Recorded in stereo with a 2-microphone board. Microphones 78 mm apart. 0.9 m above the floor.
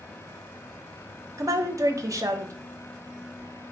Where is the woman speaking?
40° right (ahead or behind), 0.6 m.